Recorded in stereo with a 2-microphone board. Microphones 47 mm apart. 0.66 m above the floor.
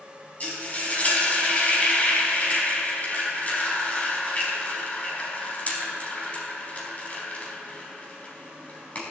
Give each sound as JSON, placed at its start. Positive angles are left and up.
{"t": 0.4, "sound": "frying", "side_deg": 30, "distance_m": 4.0}